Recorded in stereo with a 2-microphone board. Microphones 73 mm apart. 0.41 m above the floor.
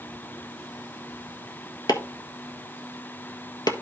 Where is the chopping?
65° left (ahead or behind), 1.2 m.